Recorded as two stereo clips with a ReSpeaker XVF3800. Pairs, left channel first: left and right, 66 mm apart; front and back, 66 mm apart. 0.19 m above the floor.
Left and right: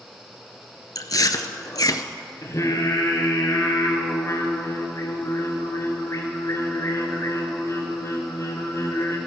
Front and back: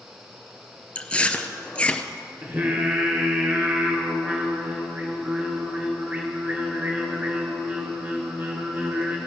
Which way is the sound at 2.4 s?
120° left.